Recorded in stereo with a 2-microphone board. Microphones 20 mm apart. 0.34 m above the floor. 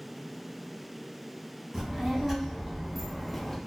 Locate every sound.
1.7 s a child speaking: 20° right (ahead or behind), 1.5 m; by 3.6 s 15° left (ahead or behind), 0.6 m